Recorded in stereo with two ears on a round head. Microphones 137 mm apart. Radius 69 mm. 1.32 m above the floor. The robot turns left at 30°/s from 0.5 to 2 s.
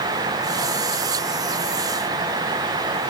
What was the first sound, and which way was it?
Only background noise.